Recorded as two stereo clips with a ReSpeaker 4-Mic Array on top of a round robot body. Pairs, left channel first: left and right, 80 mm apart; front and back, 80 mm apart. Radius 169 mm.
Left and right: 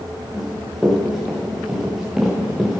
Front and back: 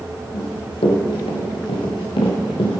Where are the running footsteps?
Straight ahead, 4 m; by 2.8 s 5° right, 2.5 m.